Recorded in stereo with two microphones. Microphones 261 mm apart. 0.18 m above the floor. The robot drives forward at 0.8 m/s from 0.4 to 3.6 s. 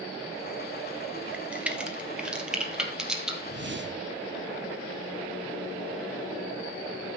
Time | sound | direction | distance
1.3 | a crack | 5° right (ahead or behind) | 1.8 m
3.5 | a whoosh | 40° right (ahead or behind) | 0.7 m